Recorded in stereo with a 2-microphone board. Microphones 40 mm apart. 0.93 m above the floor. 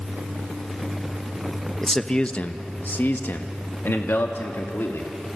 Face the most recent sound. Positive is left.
turn(degrees=75)  # may be behind; listen again after turning